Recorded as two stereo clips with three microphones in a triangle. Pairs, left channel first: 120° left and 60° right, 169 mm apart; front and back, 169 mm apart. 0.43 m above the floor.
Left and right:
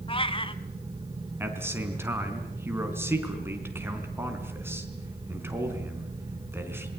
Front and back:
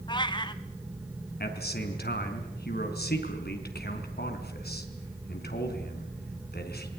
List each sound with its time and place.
0.1 s a cat meowing: 65° left, 1.0 m
1.4 s a man speaking: 15° left, 4 m